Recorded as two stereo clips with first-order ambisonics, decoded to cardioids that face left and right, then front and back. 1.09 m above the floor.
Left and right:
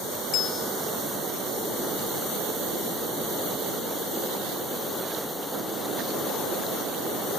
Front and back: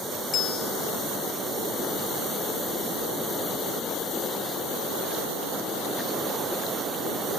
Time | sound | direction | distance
0.3 | a bell | 55° left | 2 m